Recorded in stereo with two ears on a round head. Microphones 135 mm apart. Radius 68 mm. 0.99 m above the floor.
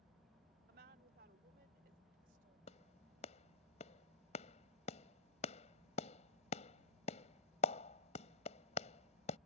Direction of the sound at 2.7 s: 50° left (ahead or behind).